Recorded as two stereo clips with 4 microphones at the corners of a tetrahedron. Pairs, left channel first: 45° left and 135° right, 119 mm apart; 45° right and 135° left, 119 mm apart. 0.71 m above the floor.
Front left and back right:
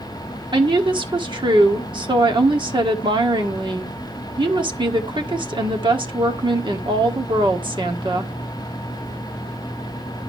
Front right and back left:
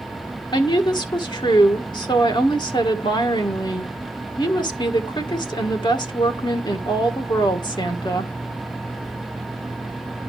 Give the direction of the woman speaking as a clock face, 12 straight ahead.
3 o'clock.